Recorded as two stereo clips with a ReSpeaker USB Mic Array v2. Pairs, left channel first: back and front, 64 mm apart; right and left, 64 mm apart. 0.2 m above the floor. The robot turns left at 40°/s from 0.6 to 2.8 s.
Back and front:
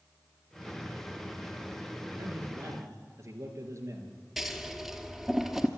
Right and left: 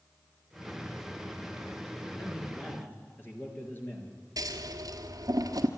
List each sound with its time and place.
2.2 s a man speaking: 10° right, 4 m; by 4.2 s 35° right, 4 m
4.4 s scissors: 90° left, 1.5 m